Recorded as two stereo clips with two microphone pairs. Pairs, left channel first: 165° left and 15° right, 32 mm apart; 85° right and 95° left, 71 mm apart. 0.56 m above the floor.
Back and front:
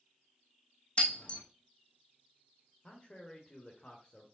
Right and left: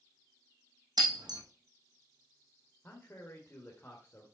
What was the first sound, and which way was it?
Breaking glass, 110° left.